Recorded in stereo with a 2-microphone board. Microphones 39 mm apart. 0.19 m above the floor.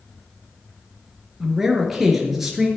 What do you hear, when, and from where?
1.4 s a man speaking: 5° right (ahead or behind), 3.5 m